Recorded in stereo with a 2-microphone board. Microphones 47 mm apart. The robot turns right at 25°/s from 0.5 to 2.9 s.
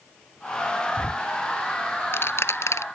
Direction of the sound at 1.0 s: 25° left (ahead or behind).